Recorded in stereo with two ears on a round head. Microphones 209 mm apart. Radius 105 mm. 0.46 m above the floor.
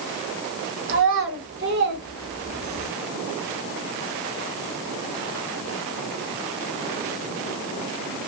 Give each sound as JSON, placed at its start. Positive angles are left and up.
{"t": 0.9, "sound": "a child speaking", "side_deg": -55, "distance_m": 1.4}